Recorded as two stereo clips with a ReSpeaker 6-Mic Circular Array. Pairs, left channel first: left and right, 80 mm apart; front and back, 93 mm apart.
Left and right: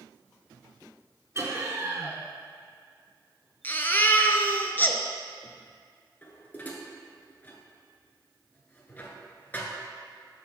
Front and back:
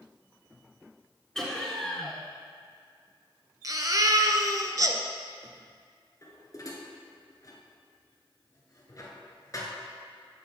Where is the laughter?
80° right, 1.3 m.